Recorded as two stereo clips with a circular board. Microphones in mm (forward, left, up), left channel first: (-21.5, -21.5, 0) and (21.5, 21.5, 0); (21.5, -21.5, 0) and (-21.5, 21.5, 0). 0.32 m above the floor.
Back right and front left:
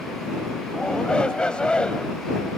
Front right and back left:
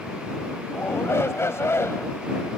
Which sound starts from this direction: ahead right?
A shout, at 0.7 s.